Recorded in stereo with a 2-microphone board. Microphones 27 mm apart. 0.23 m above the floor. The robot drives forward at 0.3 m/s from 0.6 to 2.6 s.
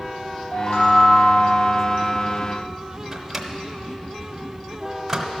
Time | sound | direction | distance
0.5 | a chime | 50° left (ahead or behind) | 3 m
3.1 | a microwave | 10° right (ahead or behind) | 0.8 m